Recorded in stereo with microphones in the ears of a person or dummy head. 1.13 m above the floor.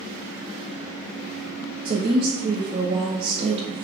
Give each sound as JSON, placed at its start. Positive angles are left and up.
{"t": 1.9, "sound": "a woman speaking", "side_deg": -25, "distance_m": 0.6}